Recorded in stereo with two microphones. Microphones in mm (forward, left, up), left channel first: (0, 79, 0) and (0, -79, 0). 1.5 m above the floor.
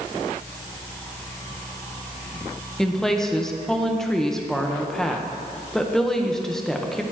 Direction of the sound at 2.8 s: 5° left (ahead or behind).